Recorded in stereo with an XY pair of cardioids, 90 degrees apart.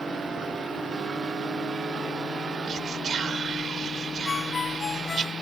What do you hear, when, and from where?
2.7 s whispering: 55° right
4.2 s a ringtone: 45° left